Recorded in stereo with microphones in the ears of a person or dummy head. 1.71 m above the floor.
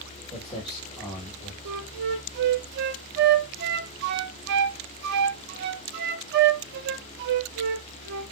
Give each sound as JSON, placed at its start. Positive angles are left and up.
{"t": 0.3, "sound": "footsteps", "side_deg": -10, "distance_m": 2.0}
{"t": 1.6, "sound": "a flute", "side_deg": -60, "distance_m": 0.6}